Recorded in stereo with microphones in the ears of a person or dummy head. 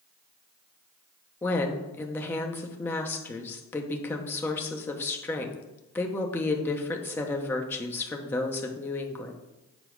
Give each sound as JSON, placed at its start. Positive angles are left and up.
{"t": 1.4, "sound": "a woman speaking", "side_deg": 15, "distance_m": 0.9}